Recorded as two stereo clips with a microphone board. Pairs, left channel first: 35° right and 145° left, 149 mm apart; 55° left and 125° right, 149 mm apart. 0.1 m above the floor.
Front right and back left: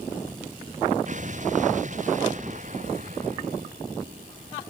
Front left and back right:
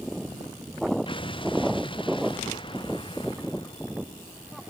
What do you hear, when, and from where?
1.1 s an explosion: 110° left